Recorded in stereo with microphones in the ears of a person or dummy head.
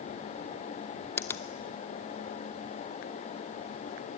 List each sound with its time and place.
1.2 s a finger snap: 15° left (ahead or behind), 0.7 m